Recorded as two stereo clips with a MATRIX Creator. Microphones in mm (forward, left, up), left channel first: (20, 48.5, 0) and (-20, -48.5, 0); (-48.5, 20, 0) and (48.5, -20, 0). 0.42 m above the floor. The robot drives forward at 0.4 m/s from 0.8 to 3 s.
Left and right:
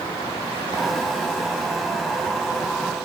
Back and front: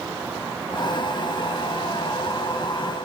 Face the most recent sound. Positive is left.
No sound to turn to.